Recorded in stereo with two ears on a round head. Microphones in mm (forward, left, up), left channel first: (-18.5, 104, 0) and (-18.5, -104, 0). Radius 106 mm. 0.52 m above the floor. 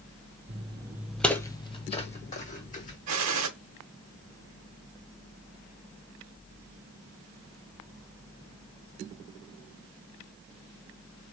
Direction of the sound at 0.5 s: 30° right (ahead or behind).